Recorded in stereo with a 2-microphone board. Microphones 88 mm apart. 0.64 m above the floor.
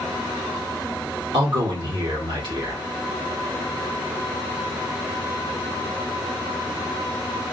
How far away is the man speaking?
About 1.5 m.